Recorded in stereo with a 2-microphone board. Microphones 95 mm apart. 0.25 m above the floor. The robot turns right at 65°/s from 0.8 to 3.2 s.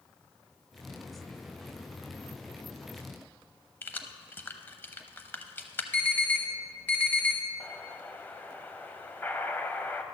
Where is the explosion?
20° left (ahead or behind), 0.7 m.